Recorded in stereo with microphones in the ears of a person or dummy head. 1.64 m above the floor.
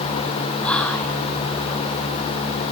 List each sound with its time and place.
0.6 s whispering: 5° left (ahead or behind), 0.9 m